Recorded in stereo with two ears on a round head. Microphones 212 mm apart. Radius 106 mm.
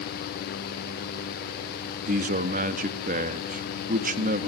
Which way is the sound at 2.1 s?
35° right (ahead or behind).